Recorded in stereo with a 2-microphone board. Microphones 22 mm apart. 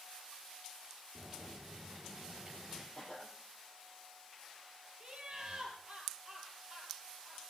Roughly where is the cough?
Left.